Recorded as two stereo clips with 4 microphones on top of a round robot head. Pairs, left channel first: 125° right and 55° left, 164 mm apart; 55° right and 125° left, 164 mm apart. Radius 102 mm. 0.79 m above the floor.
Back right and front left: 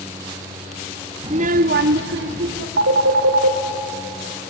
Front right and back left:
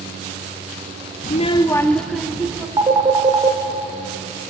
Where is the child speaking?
10° right, 0.6 m; by 2.7 s 45° left, 1.5 m.